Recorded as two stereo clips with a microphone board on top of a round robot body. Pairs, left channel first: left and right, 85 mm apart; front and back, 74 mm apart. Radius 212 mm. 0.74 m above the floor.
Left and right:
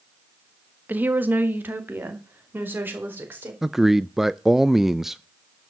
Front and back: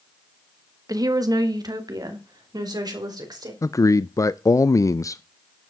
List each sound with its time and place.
0.9 s a woman speaking: 155° right, 1.8 m
3.6 s a man speaking: 5° right, 0.6 m